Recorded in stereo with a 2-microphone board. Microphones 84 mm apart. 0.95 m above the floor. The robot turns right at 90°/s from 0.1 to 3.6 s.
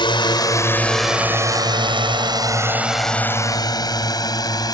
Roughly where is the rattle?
I don't hear a rattle.